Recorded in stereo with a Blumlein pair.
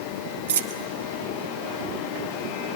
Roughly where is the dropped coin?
Ahead right.